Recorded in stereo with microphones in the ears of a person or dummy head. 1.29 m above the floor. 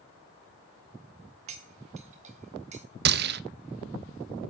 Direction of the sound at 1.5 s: 40° right (ahead or behind).